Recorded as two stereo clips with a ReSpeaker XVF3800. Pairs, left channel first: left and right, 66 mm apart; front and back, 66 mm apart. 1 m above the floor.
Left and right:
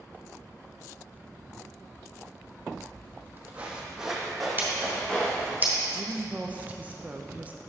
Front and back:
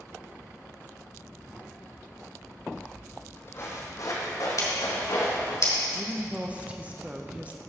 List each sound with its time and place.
2.8 s footsteps: 75° right, 1.5 m; by 5.6 s 15° left, 3.5 m
4.6 s scissors: 30° right, 2.5 m
6.0 s a woman speaking: 135° right, 0.5 m